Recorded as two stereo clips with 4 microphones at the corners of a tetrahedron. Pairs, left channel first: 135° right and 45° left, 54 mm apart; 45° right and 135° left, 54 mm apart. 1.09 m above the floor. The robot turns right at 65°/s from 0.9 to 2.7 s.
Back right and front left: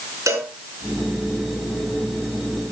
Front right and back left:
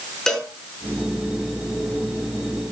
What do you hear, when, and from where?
0.3 s a cowbell: 35° left, 4.5 m